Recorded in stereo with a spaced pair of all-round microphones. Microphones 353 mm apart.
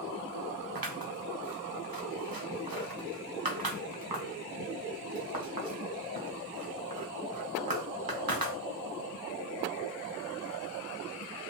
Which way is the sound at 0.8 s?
75° right (ahead or behind).